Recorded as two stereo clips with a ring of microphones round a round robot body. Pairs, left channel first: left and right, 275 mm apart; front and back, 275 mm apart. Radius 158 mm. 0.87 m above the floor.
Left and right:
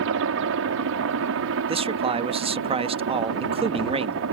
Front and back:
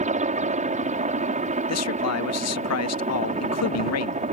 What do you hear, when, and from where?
0.0 s a helicopter: 120° right
1.7 s a man speaking: 20° right